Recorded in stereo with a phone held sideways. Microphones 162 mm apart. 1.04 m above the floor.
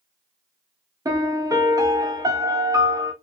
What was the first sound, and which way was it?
A piano, 20° right (ahead or behind).